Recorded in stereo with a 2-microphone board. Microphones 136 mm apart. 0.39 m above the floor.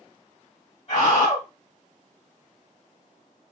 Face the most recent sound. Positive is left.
turn(degrees=45)  # may be behind; listen again after turning